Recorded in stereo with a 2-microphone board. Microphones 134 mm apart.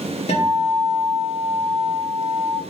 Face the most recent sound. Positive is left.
turn(degrees=55)  # may be behind; listen again after turning